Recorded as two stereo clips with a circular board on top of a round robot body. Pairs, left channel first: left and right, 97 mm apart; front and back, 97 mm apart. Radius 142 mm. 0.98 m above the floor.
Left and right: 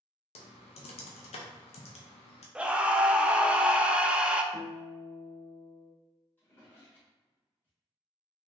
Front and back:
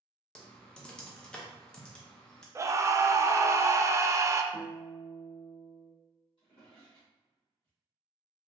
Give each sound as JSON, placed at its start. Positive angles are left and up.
{"t": 0.3, "sound": "typing on a keyboard", "azimuth_deg": 80, "distance_m": 0.5}
{"t": 2.5, "sound": "a scream", "azimuth_deg": -160, "distance_m": 0.6}
{"t": 4.5, "sound": "a guitar", "azimuth_deg": 120, "distance_m": 0.6}
{"t": 6.4, "sound": "a drawer", "azimuth_deg": 20, "distance_m": 0.7}